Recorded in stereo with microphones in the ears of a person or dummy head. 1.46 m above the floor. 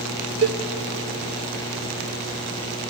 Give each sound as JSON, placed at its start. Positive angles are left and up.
{"t": 0.4, "sound": "a cowbell", "side_deg": -60, "distance_m": 1.4}